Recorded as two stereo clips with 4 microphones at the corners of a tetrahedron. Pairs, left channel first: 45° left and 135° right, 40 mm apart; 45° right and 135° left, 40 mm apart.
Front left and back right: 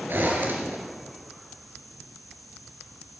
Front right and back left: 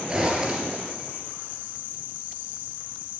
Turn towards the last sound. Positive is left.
turn(degrees=-160)